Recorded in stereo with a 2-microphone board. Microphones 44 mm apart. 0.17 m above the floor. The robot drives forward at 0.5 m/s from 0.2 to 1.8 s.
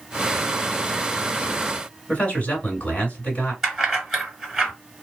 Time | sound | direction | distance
2.1 | a man speaking | 35° left (ahead or behind) | 1.9 m
3.6 | keys jangling | 5° right (ahead or behind) | 1.6 m